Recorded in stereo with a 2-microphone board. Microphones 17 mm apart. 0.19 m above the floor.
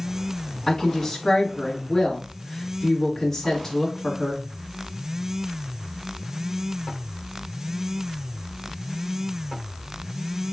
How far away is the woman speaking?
About 1.1 m.